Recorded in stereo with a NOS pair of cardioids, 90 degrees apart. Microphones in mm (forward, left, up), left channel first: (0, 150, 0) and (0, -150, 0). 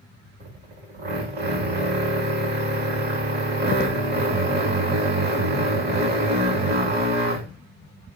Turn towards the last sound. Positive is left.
turn(degrees=-35)